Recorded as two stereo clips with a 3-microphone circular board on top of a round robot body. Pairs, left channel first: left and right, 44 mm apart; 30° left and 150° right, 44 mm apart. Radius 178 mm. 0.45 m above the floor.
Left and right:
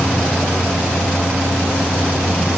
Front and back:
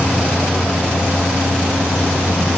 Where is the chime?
I don't hear a chime.